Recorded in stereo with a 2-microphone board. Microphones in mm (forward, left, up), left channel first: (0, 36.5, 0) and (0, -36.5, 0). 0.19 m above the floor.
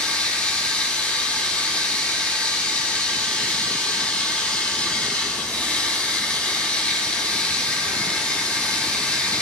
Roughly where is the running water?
Centre.